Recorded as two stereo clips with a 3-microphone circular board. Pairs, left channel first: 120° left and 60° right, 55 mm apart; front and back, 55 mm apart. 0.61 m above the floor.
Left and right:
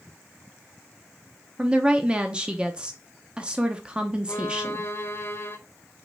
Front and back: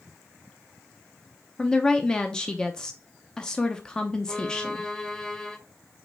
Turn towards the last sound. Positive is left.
turn(degrees=80)